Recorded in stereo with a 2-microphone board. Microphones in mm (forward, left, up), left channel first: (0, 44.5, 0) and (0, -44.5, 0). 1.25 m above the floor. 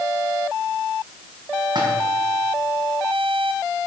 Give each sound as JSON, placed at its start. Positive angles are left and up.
{"t": 1.8, "sound": "a splash", "side_deg": -55, "distance_m": 4.5}